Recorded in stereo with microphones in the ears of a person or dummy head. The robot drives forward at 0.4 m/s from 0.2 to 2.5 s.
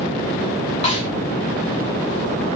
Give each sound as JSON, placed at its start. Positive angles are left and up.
{"t": 0.8, "sound": "a snare drum", "side_deg": 35, "distance_m": 0.8}